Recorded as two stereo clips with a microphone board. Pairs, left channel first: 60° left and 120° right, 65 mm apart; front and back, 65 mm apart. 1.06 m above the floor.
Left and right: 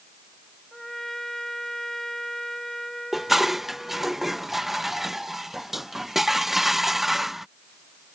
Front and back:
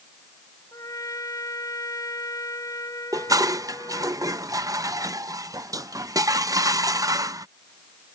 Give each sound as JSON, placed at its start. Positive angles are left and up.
{"t": 0.7, "sound": "a trumpet", "azimuth_deg": -25}
{"t": 3.1, "sound": "dishes clattering", "azimuth_deg": 155}